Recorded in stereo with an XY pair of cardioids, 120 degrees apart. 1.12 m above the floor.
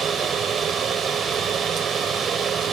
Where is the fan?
45° right.